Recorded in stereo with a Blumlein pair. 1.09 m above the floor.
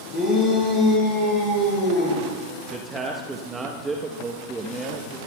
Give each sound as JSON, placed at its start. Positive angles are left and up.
{"t": 0.1, "sound": "a shout", "azimuth_deg": 20, "distance_m": 5.0}
{"t": 2.7, "sound": "a man speaking", "azimuth_deg": -15, "distance_m": 1.0}